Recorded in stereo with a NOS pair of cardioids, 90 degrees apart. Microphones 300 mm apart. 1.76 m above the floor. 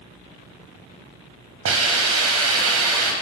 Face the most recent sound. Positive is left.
turn(degrees=-50)